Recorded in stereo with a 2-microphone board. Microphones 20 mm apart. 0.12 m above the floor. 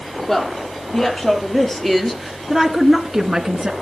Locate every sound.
0.3 s a woman speaking: 25° left (ahead or behind), 5 m; by 3.7 s 25° right (ahead or behind), 1.7 m